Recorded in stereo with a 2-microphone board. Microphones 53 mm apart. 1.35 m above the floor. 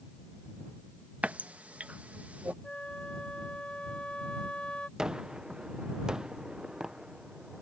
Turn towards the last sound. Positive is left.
turn(degrees=-15)  # may be behind; listen again after turning